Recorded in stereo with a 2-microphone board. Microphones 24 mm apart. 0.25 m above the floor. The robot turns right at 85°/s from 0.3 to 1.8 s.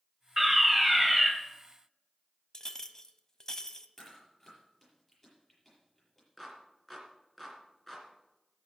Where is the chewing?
20° left (ahead or behind), 7 m.